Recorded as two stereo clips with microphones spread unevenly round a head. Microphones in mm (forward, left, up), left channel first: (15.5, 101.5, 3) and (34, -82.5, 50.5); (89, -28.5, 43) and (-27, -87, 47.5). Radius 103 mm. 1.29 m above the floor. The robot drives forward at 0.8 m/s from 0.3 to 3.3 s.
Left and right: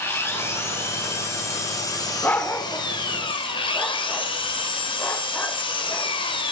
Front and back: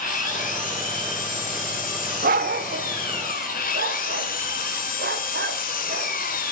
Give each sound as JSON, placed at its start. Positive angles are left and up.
{"t": 0.0, "sound": "an engine running", "azimuth_deg": 15, "distance_m": 5.5}
{"t": 2.2, "sound": "a dog barking", "azimuth_deg": -175, "distance_m": 1.4}